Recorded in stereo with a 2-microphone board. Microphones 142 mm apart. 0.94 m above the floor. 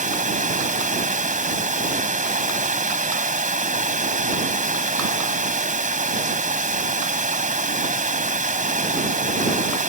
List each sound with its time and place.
0.0 s running water: 65° right (ahead or behind)